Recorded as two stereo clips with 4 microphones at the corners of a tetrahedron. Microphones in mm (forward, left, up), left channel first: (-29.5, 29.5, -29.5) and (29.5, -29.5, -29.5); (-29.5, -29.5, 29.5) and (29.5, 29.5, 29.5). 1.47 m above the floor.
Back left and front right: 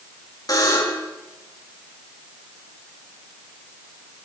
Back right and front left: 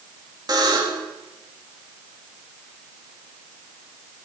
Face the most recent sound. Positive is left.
turn(degrees=85)